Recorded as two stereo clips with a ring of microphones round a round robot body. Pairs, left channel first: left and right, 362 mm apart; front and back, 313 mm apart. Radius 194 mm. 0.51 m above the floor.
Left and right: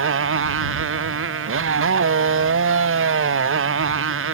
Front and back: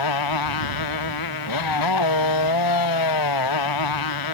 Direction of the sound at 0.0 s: 30° right.